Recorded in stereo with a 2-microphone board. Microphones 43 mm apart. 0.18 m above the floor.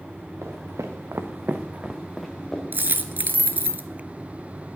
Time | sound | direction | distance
0.4 | footsteps | 80° right | 1.8 m
2.7 | a dropped coin | 45° right (ahead or behind) | 0.6 m